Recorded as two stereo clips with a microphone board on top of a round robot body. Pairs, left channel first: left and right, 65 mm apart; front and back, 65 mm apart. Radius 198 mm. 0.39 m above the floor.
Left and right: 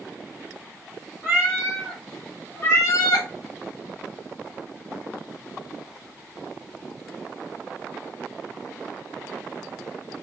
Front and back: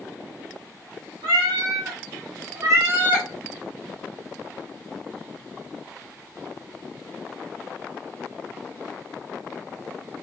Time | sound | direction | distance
1.2 | a cat meowing | 165° right | 1.0 m